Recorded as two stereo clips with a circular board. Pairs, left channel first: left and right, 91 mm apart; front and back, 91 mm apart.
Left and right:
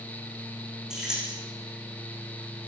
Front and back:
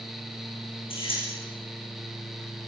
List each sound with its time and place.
0.9 s keys jangling: 10° right, 8 m